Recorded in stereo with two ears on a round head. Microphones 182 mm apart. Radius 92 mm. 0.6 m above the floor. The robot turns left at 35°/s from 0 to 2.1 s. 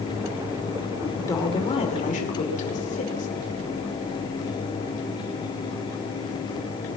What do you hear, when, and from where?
1.0 s a woman speaking: 170° left, 2.5 m; by 3.3 s 135° left, 2.5 m